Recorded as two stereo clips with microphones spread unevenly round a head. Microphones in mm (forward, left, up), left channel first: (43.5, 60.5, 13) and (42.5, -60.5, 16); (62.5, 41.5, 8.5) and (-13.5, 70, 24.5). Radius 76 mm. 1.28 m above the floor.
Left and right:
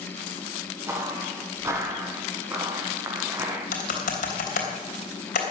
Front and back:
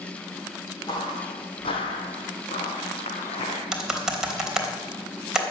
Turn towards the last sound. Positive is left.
turn(degrees=80)